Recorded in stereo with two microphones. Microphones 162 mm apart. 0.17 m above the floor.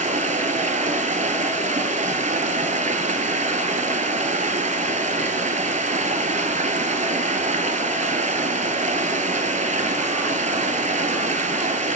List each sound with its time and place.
0.0 s running water: 50° right (ahead or behind), 0.8 m